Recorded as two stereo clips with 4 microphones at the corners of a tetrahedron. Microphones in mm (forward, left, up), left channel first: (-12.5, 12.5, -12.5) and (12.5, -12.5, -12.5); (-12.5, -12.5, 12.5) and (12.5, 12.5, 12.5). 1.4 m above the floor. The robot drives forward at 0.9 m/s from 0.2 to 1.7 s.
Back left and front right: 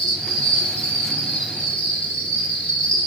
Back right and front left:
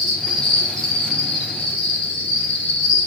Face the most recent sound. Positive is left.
turn(degrees=170)